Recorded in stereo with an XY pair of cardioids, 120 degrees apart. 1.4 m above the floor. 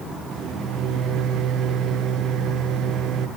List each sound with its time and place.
0.3 s a microwave: 65° right, 0.9 m